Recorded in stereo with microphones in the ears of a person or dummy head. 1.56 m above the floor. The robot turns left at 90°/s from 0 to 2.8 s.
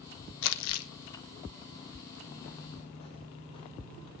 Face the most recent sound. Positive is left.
turn(degrees=20)  # may be behind; listen again after turning